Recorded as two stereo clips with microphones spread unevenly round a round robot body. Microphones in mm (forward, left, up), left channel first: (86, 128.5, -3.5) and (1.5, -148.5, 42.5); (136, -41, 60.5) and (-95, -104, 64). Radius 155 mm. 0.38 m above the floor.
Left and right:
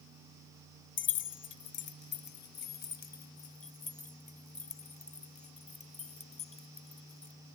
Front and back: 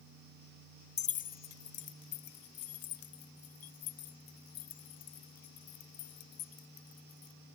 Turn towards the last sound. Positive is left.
turn(degrees=5)